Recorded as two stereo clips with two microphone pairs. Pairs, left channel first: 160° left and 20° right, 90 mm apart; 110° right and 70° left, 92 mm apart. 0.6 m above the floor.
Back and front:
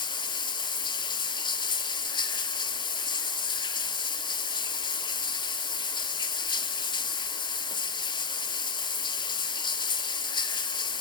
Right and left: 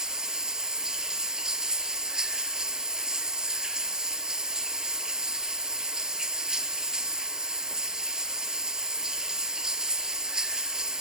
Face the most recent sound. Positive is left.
turn(degrees=150)